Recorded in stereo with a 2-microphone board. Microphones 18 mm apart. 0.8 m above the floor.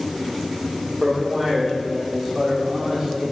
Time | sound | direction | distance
1.0 | a man speaking | 30° right (ahead or behind) | 2 m